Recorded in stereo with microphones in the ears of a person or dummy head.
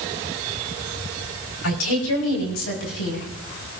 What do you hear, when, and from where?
1.6 s a woman speaking: 80° left, 4.5 m; by 3.3 s 75° left (ahead or behind), 5.5 m